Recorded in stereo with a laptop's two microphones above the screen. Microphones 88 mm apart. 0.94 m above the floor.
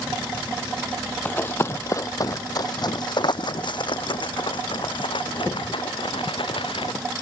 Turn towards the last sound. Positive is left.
turn(degrees=75)  # may be behind; listen again after turning